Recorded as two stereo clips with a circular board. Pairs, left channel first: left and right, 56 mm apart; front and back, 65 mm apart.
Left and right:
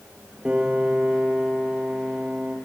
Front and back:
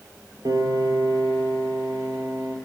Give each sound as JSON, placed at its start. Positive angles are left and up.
{"t": 0.5, "sound": "a piano", "azimuth_deg": -155, "distance_m": 4.0}